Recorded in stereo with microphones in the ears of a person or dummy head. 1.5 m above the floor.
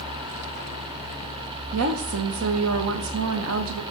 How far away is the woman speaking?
About 0.9 m.